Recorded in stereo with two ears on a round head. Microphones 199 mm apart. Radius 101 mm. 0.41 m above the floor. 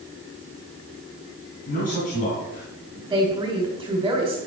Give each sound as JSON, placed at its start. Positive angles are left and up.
{"t": 1.7, "sound": "a man speaking", "side_deg": 35, "distance_m": 3.0}
{"t": 3.1, "sound": "a woman speaking", "side_deg": -15, "distance_m": 2.5}